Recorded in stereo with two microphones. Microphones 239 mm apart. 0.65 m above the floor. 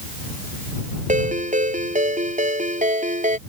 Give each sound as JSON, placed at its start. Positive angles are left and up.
{"t": 1.1, "sound": "a ringtone", "side_deg": -30}